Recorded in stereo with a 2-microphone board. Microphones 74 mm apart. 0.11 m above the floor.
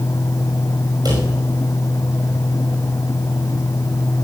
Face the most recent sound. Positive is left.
turn(degrees=-65)  # may be behind; listen again after turning